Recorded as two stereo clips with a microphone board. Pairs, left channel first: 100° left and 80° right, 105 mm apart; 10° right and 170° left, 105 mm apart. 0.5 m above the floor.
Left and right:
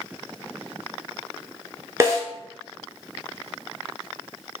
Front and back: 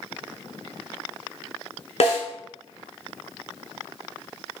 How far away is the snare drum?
About 1.1 m.